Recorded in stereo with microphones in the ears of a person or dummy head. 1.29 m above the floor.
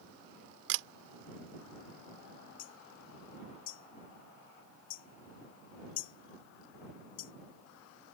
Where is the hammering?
50° left (ahead or behind).